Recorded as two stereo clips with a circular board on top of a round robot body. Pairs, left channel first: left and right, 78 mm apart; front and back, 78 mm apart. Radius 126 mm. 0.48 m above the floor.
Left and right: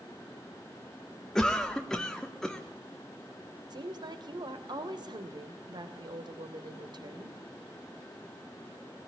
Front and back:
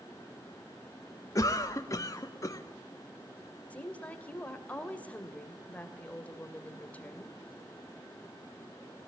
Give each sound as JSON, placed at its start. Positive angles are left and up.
{"t": 1.4, "sound": "a cough", "azimuth_deg": 10, "distance_m": 1.6}
{"t": 3.7, "sound": "a woman speaking", "azimuth_deg": -70, "distance_m": 2.5}